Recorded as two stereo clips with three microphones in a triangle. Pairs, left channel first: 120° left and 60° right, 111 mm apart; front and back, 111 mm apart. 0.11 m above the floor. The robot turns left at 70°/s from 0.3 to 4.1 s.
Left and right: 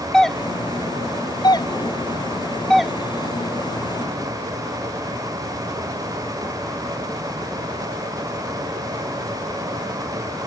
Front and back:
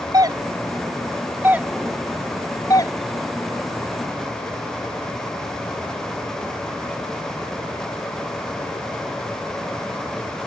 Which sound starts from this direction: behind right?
A doorbell, at 0.1 s.